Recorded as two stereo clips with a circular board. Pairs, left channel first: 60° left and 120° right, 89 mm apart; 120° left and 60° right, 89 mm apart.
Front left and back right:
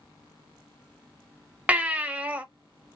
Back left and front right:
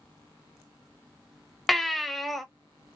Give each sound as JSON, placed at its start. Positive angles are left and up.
{"t": 1.7, "sound": "a baby crying", "azimuth_deg": -150, "distance_m": 0.6}